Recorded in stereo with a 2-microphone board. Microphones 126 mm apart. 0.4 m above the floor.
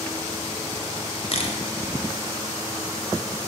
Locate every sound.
1.3 s a camera shutter: 50° left (ahead or behind), 1.5 m